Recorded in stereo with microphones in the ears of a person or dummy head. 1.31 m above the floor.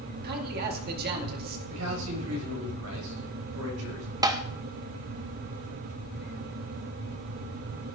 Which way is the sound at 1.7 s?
85° right.